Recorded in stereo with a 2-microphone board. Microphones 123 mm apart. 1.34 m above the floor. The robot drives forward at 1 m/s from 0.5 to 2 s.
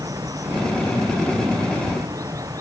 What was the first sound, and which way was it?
Running water, 30° right (ahead or behind).